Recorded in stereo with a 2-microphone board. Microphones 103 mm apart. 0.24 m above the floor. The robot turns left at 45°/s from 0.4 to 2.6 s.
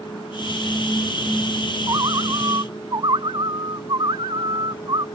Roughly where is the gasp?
No gasp in this recording.